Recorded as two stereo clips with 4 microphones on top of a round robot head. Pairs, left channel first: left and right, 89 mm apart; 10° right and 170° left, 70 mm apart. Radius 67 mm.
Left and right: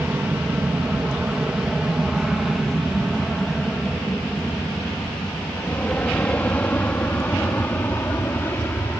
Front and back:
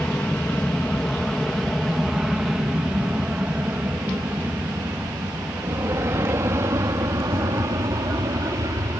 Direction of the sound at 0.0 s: 45° right.